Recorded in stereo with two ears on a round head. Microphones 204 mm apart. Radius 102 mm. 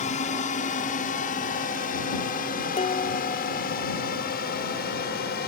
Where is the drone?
35° left (ahead or behind); by 5.5 s 45° left (ahead or behind).